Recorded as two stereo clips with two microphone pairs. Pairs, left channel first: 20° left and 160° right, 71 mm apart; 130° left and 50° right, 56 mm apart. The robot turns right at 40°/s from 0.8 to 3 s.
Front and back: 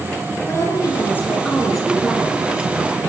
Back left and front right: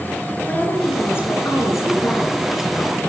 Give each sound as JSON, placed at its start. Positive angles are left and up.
{"t": 0.5, "sound": "a woman speaking", "azimuth_deg": 70, "distance_m": 9.0}